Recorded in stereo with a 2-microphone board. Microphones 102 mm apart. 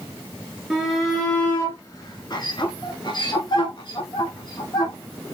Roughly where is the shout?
Centre.